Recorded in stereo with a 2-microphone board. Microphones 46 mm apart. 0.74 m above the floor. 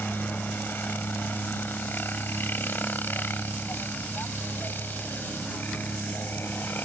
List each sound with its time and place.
0.0 s a helicopter: 45° left (ahead or behind)